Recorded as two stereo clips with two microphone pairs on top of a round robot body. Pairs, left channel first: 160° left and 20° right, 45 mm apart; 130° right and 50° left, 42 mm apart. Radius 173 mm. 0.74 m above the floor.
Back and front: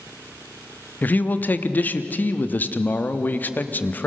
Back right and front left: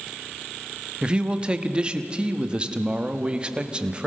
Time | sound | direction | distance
1.0 | a man speaking | 115° left | 1.3 m